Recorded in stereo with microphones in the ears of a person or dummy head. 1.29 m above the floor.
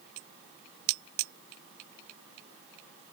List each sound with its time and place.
Only background noise.